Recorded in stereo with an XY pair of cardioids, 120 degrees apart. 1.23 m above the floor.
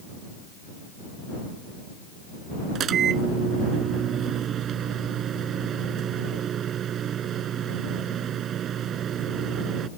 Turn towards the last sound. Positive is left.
turn(degrees=-55)